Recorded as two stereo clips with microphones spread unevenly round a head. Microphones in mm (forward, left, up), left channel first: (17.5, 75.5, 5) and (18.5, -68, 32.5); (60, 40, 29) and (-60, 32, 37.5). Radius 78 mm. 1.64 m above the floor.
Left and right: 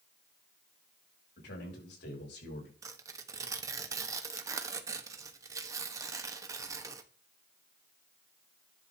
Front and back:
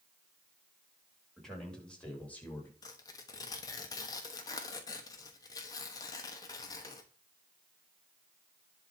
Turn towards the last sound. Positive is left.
turn(degrees=-55)